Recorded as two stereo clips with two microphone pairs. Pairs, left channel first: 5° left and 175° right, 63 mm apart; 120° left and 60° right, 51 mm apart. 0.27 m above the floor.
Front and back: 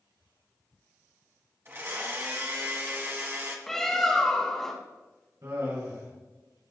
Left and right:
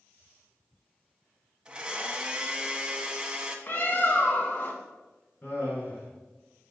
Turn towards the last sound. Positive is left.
turn(degrees=170)